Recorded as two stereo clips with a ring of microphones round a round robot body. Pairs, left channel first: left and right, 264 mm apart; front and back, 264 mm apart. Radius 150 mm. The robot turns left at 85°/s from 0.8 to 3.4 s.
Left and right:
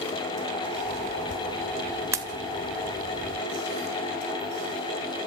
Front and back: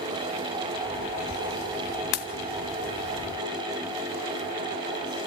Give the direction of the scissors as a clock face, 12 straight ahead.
I don't hear scissors.